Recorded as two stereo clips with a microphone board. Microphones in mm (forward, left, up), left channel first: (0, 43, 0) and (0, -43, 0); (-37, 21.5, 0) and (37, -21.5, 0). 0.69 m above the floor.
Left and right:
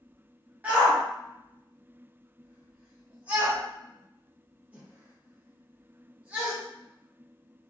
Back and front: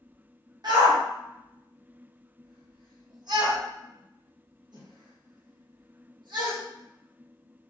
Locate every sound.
0.6 s a shout: 20° right, 0.9 m